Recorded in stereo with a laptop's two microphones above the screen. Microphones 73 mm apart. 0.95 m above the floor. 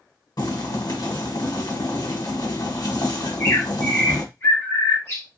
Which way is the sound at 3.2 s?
35° left (ahead or behind).